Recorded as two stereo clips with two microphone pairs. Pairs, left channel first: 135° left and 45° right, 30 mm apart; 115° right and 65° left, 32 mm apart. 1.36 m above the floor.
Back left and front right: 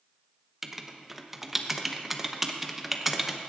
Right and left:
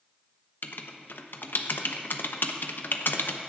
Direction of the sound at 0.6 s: 125° right.